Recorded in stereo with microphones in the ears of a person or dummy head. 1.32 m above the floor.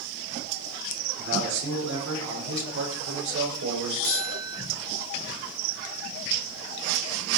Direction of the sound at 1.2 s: 70° right (ahead or behind).